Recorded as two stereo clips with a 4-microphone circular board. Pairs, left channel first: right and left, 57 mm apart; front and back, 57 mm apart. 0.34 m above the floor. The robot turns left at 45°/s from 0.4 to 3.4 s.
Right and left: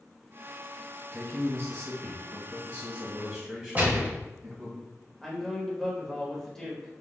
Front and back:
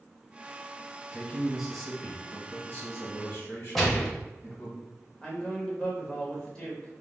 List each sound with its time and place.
1.1 s a man speaking: 125° left, 1.3 m; by 4.8 s 20° left, 1.3 m
3.8 s a gunshot: 85° left, 0.8 m
5.2 s a man speaking: 20° right, 0.8 m